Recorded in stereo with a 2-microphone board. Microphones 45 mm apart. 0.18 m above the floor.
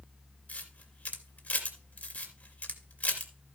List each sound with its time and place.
0.5 s a camera shutter: 35° left (ahead or behind), 2.5 m